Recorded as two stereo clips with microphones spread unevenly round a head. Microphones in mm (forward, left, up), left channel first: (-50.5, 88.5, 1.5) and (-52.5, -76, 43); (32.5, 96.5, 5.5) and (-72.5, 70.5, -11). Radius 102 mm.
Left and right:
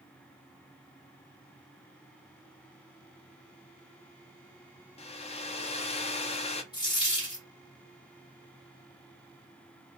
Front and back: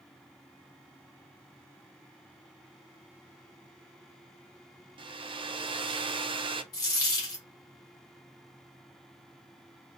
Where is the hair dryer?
145° left, 0.5 m.